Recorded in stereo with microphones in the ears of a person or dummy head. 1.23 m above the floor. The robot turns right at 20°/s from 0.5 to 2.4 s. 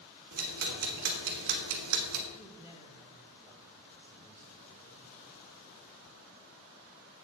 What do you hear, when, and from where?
0.3 s ticking: 50° right (ahead or behind), 1.5 m; by 2.2 s 80° right, 1.5 m
2.3 s a man speaking: centre (ahead or behind), 1.7 m